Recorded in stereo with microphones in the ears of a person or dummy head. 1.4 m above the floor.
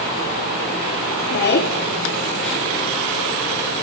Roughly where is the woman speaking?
Left.